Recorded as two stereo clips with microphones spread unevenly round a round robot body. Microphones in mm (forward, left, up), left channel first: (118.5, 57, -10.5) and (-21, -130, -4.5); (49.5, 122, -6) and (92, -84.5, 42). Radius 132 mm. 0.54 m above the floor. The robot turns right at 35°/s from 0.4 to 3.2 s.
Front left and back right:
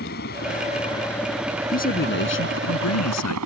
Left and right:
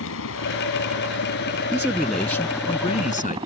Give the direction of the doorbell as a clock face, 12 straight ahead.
No doorbell in this recording.